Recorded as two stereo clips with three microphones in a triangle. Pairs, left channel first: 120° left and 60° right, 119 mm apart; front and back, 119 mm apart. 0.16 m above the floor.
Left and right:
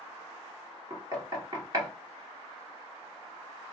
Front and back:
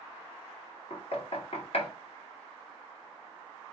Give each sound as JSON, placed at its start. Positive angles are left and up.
{"t": 0.9, "sound": "knocking", "azimuth_deg": -10, "distance_m": 1.7}